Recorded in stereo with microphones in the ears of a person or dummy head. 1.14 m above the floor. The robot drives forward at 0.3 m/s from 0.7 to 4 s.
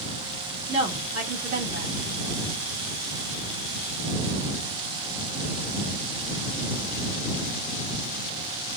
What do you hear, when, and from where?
0.7 s a woman speaking: 30° right (ahead or behind), 1.4 m; by 1.9 s 35° right (ahead or behind), 1.2 m